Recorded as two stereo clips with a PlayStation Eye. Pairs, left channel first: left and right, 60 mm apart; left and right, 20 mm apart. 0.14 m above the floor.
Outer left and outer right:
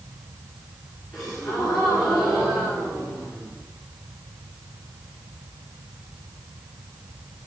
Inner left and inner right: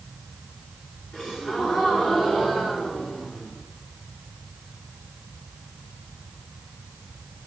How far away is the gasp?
About 8.5 m.